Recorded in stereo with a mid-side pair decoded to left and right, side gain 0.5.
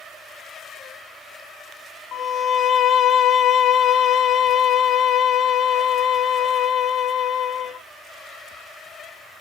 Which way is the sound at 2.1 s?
60° left.